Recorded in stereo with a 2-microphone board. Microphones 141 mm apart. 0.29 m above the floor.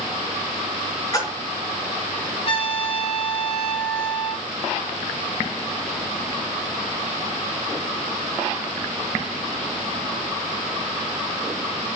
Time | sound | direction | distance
1.1 | a splash | 25° left (ahead or behind) | 4 m
2.5 | a trumpet | 40° left (ahead or behind) | 3 m